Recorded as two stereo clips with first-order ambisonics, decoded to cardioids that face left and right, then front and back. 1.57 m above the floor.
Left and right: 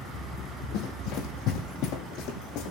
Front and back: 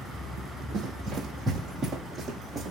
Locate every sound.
0.7 s running footsteps: 110° left, 4 m; by 2.7 s 105° left, 4.5 m